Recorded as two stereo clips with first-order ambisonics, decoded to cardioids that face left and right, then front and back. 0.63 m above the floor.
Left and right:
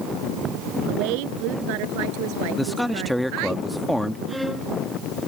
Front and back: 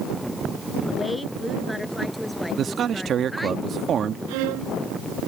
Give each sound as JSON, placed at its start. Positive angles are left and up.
{"t": 0.9, "sound": "a woman speaking", "azimuth_deg": -90}
{"t": 2.6, "sound": "a man speaking", "azimuth_deg": 180}
{"t": 4.3, "sound": "a violin", "azimuth_deg": 180}